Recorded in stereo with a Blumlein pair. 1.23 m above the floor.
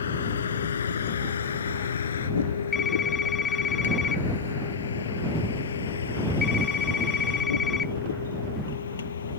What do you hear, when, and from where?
0.0 s a vehicle: 65° left; by 9.4 s 70° left
2.7 s a phone ringing: 20° left